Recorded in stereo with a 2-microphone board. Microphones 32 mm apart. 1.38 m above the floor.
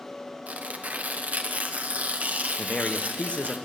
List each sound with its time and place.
0.5 s tearing paper: 50° right (ahead or behind), 1.0 m
2.6 s a man speaking: 40° left (ahead or behind), 1.0 m